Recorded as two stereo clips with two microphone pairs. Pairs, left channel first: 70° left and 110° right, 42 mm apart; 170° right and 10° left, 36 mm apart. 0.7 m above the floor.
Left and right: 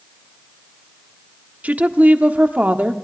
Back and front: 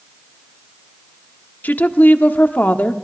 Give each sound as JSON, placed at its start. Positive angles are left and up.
{"t": 1.6, "sound": "a woman speaking", "azimuth_deg": -155, "distance_m": 1.2}